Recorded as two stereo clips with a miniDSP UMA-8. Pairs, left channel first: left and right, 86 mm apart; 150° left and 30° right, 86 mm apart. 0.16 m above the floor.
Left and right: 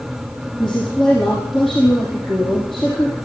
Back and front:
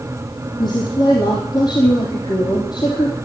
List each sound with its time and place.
0.6 s a woman speaking: 175° left, 4.5 m